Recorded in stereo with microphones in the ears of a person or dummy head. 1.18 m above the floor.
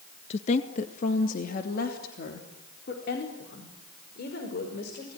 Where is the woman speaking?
40° left (ahead or behind), 1.4 m; by 5.2 s 65° left (ahead or behind), 6 m.